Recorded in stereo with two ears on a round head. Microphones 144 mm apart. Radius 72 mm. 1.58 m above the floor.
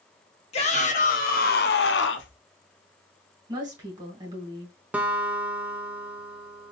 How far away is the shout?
About 1.2 m.